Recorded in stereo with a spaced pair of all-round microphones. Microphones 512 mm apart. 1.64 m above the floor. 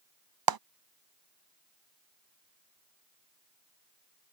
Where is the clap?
45° right (ahead or behind).